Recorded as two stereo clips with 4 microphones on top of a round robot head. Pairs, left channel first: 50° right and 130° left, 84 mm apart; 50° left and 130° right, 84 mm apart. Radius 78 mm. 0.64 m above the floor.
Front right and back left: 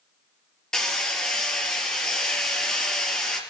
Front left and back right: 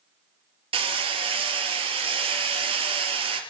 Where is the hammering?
130° right, 4 m.